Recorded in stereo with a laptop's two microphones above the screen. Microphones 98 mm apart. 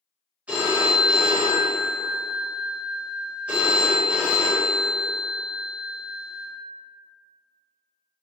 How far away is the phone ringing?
About 1.0 m.